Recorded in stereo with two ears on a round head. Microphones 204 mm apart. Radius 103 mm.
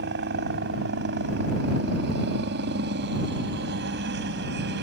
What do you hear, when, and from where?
0.0 s a helicopter: 50° right (ahead or behind)